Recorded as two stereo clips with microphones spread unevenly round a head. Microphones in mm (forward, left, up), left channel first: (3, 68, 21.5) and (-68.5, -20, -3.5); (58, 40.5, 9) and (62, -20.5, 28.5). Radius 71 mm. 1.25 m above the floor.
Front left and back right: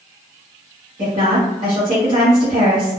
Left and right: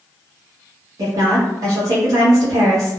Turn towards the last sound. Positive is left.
turn(degrees=-75)